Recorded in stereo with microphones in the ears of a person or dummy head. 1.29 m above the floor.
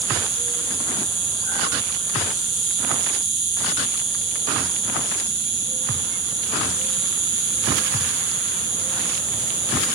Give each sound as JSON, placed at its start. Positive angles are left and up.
{"t": 0.0, "sound": "an insect", "side_deg": -65, "distance_m": 6.0}